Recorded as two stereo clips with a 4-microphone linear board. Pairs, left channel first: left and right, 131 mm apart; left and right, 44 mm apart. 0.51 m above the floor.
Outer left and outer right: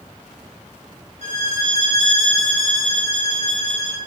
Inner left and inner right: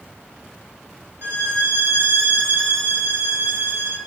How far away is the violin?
About 3 m.